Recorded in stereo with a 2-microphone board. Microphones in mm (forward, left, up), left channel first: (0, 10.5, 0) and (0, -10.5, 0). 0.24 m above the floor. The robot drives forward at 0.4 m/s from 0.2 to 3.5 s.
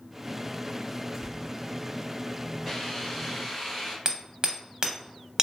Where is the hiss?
15° left (ahead or behind), 0.9 m; by 4.0 s 10° left (ahead or behind), 1.1 m.